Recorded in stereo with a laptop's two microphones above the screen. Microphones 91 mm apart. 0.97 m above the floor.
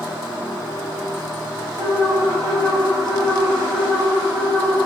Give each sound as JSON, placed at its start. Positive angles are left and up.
{"t": 1.8, "sound": "an alarm", "side_deg": -45, "distance_m": 1.5}